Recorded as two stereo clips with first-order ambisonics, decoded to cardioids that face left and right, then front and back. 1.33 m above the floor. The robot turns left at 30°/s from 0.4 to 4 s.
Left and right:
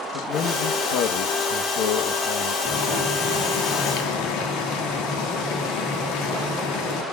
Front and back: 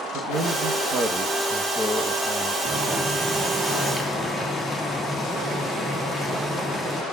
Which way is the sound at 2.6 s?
125° left.